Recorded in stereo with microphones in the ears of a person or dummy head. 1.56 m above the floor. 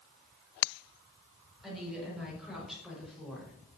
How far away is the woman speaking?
About 6.5 m.